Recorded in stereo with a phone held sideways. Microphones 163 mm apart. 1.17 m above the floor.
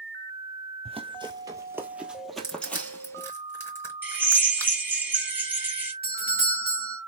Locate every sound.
0.8 s running footsteps: 35° right (ahead or behind), 1.3 m; by 3.3 s 15° left (ahead or behind), 1.8 m
2.4 s crushing: 15° left (ahead or behind), 3 m
4.0 s a drill: 10° right (ahead or behind), 2.0 m
6.0 s a doorbell: 65° left (ahead or behind), 1.9 m